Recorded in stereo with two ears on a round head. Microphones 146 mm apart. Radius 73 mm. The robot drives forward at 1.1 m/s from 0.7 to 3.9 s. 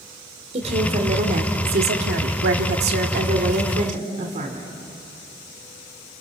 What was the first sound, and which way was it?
A woman speaking, 40° right (ahead or behind).